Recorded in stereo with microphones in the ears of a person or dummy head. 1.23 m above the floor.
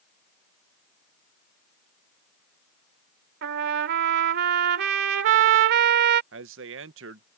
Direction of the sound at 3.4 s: 65° right (ahead or behind).